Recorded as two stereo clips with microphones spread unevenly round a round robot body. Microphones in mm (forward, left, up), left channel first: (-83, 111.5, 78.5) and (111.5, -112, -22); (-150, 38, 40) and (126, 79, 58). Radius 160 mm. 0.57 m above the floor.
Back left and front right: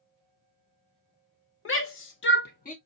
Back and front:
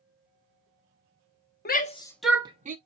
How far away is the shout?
About 1.0 m.